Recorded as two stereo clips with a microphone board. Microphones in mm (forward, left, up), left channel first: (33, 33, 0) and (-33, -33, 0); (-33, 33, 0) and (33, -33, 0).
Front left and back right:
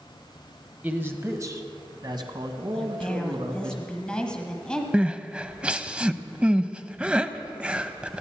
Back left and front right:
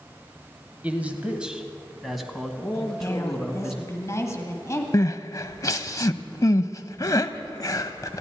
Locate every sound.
0.8 s a man speaking: 90° right, 1.1 m; by 3.7 s 140° right, 2.5 m
2.7 s a woman speaking: 115° left, 1.8 m
4.9 s crying: 150° left, 0.5 m